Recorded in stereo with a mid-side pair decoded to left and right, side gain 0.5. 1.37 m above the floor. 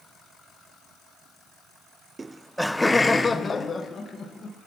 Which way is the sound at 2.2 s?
20° right.